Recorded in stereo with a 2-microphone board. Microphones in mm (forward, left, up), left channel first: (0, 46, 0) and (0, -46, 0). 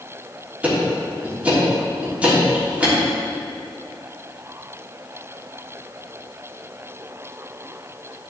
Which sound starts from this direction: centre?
Ticking, at 0.6 s.